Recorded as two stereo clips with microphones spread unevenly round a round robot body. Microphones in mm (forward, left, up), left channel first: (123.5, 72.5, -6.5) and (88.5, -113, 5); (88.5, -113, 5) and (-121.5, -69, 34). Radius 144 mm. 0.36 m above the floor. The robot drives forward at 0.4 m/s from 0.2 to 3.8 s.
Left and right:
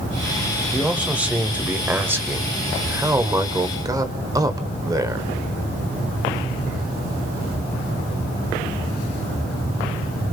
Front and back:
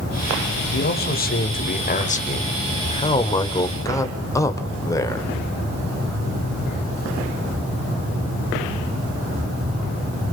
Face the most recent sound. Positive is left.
turn(degrees=-45)